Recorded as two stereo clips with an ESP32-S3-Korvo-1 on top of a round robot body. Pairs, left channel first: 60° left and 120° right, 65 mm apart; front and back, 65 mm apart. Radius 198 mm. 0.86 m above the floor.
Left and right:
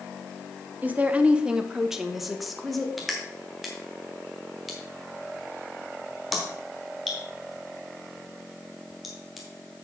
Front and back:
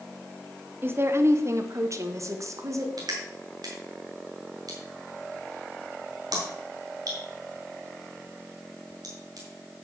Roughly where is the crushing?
Behind left.